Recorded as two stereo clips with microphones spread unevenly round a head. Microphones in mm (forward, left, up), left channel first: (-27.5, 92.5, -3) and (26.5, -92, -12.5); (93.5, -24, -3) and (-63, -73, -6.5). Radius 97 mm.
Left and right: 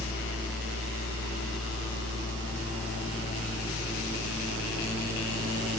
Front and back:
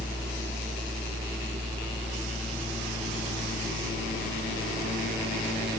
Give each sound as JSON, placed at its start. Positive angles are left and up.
{"t": 0.0, "sound": "a fan", "azimuth_deg": 100, "distance_m": 9.0}